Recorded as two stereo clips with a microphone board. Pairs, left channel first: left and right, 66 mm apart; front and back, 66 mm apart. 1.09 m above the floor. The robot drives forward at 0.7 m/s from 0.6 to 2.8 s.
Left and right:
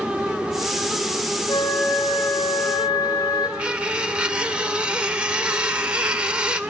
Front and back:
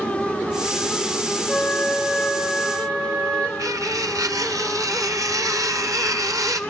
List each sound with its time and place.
1.5 s a flute: 80° left, 5 m; by 3.5 s 90° left, 5 m
3.6 s cutlery clinking: 165° right, 1.9 m